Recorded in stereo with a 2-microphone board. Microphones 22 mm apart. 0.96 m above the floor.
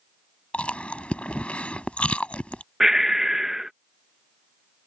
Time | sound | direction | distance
0.5 | chewing | 75° left (ahead or behind) | ?
2.8 | breathing | 15° right (ahead or behind) | ?